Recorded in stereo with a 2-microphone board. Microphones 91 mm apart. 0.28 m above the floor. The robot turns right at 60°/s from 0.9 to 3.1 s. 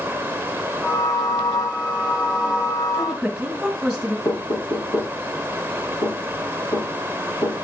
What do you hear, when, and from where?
2.9 s a woman speaking: 10° right (ahead or behind), 1.8 m; by 4.2 s centre (ahead or behind), 1.8 m
4.2 s knocking: 60° left (ahead or behind), 5.5 m